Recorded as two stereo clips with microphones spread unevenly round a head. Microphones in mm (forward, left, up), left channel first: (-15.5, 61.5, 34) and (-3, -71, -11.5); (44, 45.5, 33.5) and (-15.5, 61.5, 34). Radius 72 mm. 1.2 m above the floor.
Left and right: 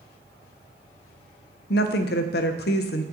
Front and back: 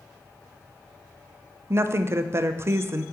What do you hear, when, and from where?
1.7 s a woman speaking: 115° left, 0.5 m